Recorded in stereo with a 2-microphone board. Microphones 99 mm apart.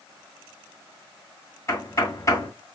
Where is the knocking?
35° left (ahead or behind), 2 m.